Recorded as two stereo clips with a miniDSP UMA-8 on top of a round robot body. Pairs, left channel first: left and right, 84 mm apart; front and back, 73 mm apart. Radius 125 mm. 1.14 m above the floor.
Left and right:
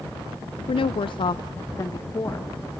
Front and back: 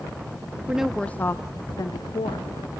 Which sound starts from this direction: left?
A woman speaking, at 0.7 s.